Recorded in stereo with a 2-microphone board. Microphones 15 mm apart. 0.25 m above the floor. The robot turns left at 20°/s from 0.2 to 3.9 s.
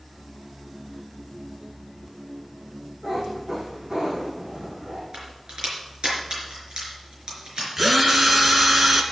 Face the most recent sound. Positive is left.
turn(degrees=-20)  # may be behind; listen again after turning